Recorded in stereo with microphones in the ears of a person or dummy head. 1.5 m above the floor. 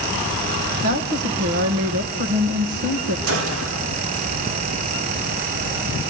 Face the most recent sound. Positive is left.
turn(degrees=-80)